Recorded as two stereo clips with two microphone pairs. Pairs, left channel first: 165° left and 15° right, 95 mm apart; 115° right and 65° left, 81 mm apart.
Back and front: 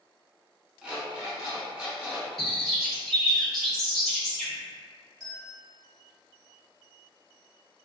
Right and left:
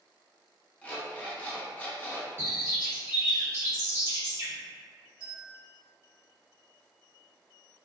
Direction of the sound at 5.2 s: 5° right.